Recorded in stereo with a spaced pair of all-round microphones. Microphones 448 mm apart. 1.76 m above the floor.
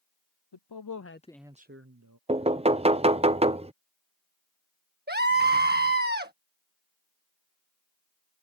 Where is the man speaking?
65° left (ahead or behind); by 2.2 s 45° right (ahead or behind).